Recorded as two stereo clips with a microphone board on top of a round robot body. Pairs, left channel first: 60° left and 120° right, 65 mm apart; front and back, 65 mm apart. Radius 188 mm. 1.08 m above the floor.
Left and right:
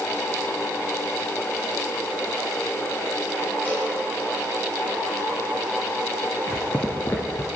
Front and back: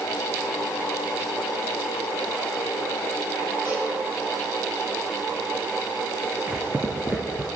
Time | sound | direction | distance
3.6 | a cowbell | 125° left | 6 m
6.5 | footsteps | 115° left | 1.2 m